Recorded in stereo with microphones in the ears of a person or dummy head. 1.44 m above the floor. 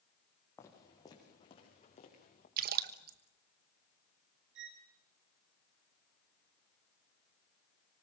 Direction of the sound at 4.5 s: 60° right (ahead or behind).